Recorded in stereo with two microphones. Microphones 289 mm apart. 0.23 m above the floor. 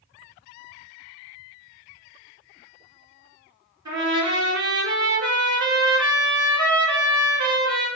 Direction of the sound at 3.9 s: 75° right (ahead or behind).